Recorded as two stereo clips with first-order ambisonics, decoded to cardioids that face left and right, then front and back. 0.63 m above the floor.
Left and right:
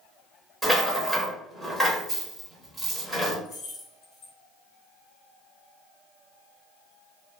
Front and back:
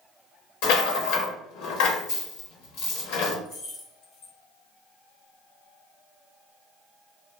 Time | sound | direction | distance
0.6 | a rattle | straight ahead | 1.0 m
3.5 | keys jangling | 35° left | 1.3 m